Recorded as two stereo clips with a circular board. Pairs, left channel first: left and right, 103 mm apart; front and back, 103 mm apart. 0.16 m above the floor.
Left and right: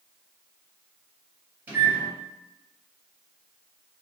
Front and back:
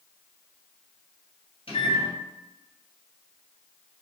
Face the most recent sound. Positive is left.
turn(degrees=-20)